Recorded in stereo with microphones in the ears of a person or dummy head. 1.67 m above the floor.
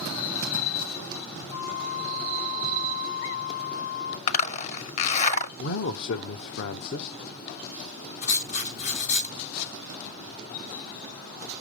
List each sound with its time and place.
1.5 s a flute: 80° left, 3 m
4.3 s a zipper: 35° left (ahead or behind), 0.7 m
5.6 s a man speaking: 65° left (ahead or behind), 1.1 m
8.2 s writing: 50° left (ahead or behind), 7.5 m